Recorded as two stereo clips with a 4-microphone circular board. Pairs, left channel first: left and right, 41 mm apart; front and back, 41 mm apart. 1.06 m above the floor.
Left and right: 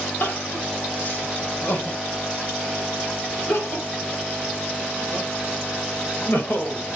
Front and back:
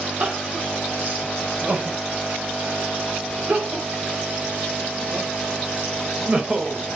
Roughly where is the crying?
Behind left.